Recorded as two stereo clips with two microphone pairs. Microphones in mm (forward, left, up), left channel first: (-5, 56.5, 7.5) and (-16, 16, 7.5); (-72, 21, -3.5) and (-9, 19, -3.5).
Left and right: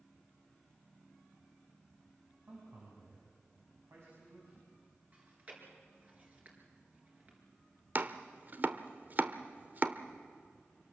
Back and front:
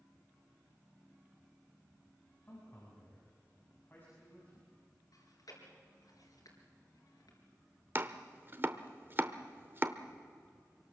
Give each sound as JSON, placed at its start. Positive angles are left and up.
{"t": 2.4, "sound": "a man speaking", "azimuth_deg": -120, "distance_m": 6.5}
{"t": 5.1, "sound": "chewing", "azimuth_deg": -160, "distance_m": 4.5}
{"t": 8.0, "sound": "chopping", "azimuth_deg": -55, "distance_m": 1.0}